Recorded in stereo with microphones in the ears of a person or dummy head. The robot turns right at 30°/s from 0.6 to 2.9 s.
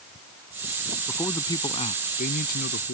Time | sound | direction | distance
1.1 | a man speaking | 10° left | ?